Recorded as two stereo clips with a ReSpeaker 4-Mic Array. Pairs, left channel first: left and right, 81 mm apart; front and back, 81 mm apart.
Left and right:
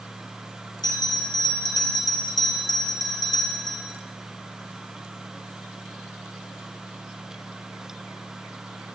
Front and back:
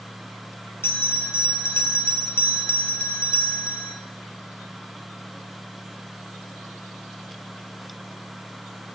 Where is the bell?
60° left, 1.1 m.